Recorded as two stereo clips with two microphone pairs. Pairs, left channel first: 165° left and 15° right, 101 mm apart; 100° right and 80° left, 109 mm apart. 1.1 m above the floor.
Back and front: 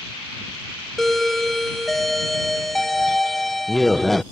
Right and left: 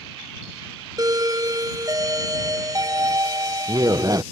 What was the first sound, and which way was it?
A doorbell, 80° left.